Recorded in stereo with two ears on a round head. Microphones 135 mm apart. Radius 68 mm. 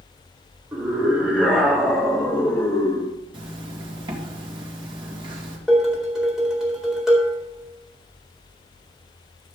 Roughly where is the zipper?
Right.